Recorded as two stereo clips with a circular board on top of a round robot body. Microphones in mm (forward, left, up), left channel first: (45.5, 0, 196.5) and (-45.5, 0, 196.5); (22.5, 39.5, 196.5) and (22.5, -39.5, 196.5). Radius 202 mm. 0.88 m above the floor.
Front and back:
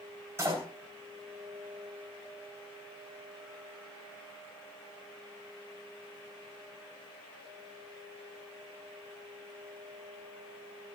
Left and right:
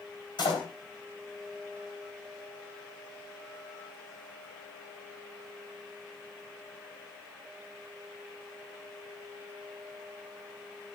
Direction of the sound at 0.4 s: 115° left.